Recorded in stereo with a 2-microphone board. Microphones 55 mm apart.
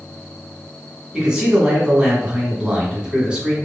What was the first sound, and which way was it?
A man speaking, 15° right (ahead or behind).